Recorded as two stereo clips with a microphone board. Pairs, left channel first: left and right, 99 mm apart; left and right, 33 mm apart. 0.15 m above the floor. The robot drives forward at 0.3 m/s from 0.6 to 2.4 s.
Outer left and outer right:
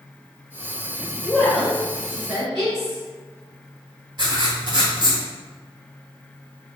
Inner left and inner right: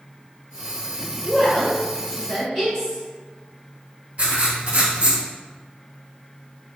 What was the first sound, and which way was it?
A woman speaking, centre (ahead or behind).